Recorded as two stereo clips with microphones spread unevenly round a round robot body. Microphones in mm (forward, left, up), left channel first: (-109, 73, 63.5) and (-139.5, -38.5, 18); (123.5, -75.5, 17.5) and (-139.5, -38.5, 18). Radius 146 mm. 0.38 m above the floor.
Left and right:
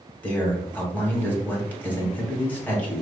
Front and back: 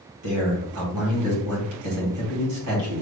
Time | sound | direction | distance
0.2 | a man speaking | 160° left | 2.5 m